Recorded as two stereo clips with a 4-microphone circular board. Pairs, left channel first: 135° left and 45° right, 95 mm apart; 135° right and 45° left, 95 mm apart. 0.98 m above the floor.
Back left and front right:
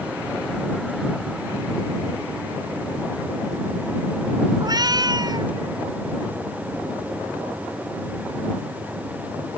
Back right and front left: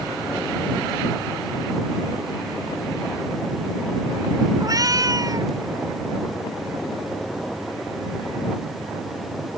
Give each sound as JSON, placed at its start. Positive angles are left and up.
{"t": 4.6, "sound": "a cat meowing", "azimuth_deg": 0}